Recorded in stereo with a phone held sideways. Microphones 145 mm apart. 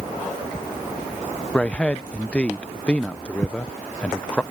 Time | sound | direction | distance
1.5 | a man speaking | 10° left (ahead or behind) | ?